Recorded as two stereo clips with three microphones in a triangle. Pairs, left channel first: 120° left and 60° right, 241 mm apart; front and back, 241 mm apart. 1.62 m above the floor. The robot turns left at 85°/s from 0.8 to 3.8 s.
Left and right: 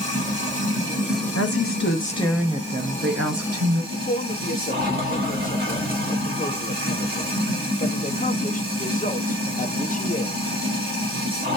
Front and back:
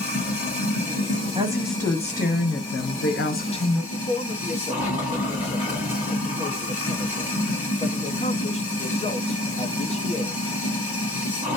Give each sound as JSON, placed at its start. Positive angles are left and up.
{"t": 0.0, "sound": "running water", "azimuth_deg": -120, "distance_m": 1.9}
{"t": 1.4, "sound": "a woman speaking", "azimuth_deg": 120, "distance_m": 0.8}
{"t": 3.9, "sound": "a man speaking", "azimuth_deg": 60, "distance_m": 0.5}